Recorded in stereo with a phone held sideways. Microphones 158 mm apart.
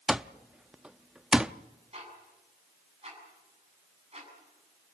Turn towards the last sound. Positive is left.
turn(degrees=-40)  # may be behind; listen again after turning